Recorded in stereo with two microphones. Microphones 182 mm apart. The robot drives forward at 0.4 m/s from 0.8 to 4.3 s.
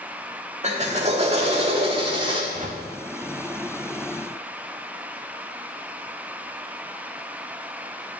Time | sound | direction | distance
0.6 | a drill | 40° right (ahead or behind) | 1.9 m
2.5 | a whoosh | 45° right (ahead or behind) | 1.6 m